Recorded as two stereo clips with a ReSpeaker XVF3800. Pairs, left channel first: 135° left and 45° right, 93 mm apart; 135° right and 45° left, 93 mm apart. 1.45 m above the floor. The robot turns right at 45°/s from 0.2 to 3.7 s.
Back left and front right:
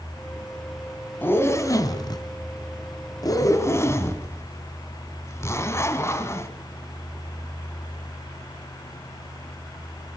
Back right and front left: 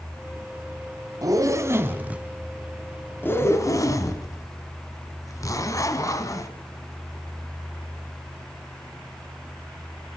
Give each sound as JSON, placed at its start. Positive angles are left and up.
{"t": 1.2, "sound": "a zipper", "azimuth_deg": 75, "distance_m": 1.9}